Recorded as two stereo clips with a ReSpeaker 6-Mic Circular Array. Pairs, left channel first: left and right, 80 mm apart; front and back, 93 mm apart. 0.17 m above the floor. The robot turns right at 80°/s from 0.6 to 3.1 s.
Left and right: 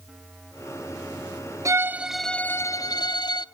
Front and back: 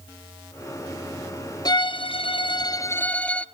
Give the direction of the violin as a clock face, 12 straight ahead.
1 o'clock.